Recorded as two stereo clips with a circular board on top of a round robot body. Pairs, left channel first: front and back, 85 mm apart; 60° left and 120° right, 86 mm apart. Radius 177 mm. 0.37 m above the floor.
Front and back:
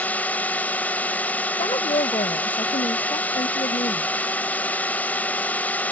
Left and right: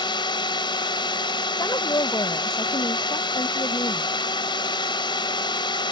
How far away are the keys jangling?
No keys jangling in this recording.